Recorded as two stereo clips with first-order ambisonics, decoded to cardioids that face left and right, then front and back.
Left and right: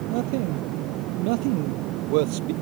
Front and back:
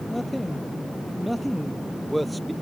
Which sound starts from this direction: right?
A man speaking, at 0.1 s.